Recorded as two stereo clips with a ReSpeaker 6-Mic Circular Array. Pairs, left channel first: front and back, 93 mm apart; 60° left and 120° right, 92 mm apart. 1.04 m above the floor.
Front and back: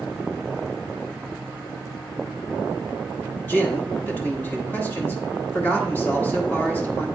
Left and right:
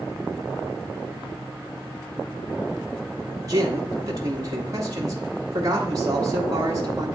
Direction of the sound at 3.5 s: 70° right.